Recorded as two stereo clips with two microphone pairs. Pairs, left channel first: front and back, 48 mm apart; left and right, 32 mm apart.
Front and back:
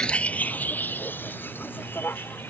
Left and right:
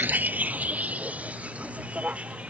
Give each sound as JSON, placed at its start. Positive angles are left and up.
{"t": 0.0, "sound": "a vehicle", "azimuth_deg": -70}